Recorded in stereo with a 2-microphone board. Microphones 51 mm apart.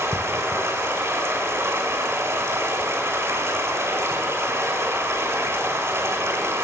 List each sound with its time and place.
0.0 s running water: 55° right (ahead or behind), 2 m